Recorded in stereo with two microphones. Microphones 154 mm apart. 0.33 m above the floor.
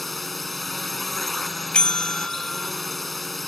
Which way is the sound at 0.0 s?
Centre (ahead or behind).